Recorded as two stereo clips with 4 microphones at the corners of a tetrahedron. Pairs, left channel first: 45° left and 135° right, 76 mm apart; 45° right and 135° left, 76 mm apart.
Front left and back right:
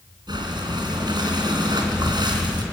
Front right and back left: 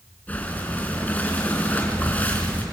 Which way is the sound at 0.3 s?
115° right.